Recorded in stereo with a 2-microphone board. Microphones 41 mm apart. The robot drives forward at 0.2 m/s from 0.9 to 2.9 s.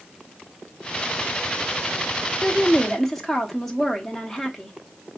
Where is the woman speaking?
5° left (ahead or behind), 1.0 m.